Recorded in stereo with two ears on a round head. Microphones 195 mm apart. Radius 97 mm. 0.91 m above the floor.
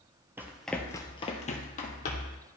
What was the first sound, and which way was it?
Running footsteps, 10° right (ahead or behind).